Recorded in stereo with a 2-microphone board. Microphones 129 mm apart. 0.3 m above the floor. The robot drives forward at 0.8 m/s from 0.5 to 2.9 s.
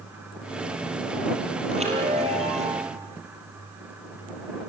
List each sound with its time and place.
1.7 s a chime: 55° right (ahead or behind), 6 m; by 2.9 s 60° right (ahead or behind), 5.5 m